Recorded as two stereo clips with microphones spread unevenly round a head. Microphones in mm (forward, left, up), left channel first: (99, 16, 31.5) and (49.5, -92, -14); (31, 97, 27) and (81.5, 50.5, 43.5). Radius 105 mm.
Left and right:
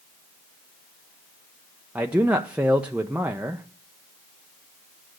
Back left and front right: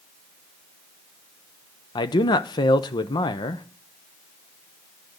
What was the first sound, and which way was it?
A man speaking, 150° left.